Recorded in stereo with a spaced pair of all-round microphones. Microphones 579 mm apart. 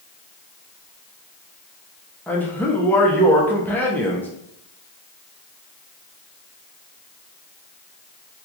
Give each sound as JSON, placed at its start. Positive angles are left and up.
{"t": 2.3, "sound": "a man speaking", "side_deg": 5, "distance_m": 0.6}